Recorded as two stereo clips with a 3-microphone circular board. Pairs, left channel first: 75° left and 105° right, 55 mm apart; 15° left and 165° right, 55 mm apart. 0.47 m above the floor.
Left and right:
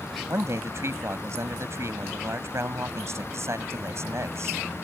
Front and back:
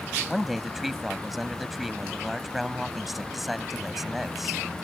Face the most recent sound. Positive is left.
turn(degrees=-80)